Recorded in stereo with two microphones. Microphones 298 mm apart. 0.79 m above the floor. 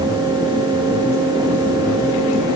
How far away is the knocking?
No knocking in this recording.